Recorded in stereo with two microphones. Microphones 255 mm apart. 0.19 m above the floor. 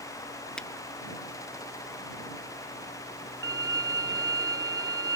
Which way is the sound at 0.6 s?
5° left (ahead or behind).